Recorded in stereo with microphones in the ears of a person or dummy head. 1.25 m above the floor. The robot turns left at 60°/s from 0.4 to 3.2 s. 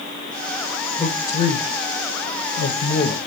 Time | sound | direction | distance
1.0 | a man speaking | 5° left (ahead or behind) | 0.7 m